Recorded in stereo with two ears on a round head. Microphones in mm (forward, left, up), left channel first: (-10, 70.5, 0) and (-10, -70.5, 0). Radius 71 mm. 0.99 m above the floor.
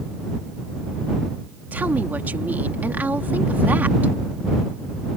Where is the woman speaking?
10° right (ahead or behind).